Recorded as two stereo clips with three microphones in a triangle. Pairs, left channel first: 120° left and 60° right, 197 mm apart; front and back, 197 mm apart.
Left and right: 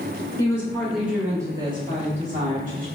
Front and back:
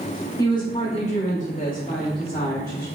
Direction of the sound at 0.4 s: 60° left.